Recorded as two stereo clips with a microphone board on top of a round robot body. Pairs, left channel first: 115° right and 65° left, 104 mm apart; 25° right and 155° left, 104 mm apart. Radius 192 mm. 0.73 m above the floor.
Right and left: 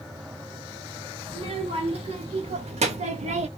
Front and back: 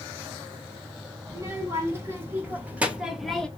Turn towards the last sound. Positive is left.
turn(degrees=60)